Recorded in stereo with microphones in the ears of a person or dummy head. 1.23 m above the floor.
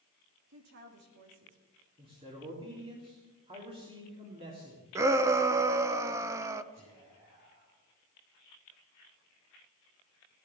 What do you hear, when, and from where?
0.5 s a woman speaking: 60° right (ahead or behind), 3 m
2.0 s a man speaking: 25° right (ahead or behind), 3 m
5.0 s a shout: 15° right (ahead or behind), 0.7 m
6.7 s whispering: 35° right (ahead or behind), 9.5 m